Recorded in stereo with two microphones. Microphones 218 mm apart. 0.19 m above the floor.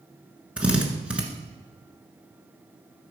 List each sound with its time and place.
0.6 s a drill: 5° right (ahead or behind), 1.4 m